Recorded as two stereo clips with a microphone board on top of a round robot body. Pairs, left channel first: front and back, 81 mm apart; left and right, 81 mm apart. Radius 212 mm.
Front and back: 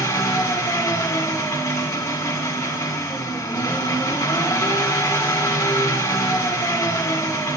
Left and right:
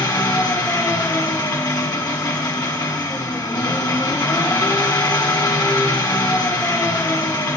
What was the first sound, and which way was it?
An engine running, 50° left.